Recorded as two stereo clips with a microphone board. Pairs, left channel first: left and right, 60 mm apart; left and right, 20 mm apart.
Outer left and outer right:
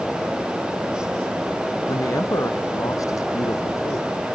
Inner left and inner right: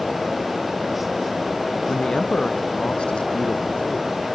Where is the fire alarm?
No fire alarm in this recording.